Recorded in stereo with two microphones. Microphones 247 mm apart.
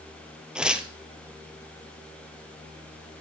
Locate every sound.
0.6 s tearing paper: 5° right (ahead or behind), 1.0 m